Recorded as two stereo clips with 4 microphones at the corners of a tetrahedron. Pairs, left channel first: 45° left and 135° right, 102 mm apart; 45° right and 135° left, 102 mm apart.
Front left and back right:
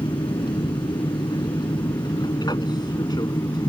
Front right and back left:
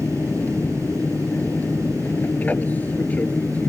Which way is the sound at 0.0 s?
25° left.